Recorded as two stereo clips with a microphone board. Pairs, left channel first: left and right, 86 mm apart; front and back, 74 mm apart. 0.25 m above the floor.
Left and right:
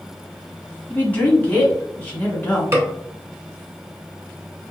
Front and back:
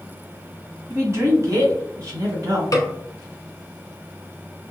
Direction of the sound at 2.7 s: 35° right.